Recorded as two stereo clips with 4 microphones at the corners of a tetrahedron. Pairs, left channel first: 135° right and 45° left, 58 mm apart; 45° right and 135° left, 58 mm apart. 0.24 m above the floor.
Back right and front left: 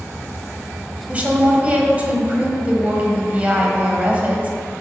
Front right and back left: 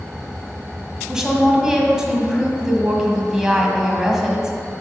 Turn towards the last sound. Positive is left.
turn(degrees=70)